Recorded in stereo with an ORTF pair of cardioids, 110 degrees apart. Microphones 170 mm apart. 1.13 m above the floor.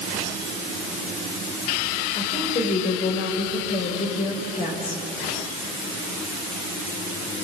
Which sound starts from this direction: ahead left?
A woman speaking, at 2.1 s.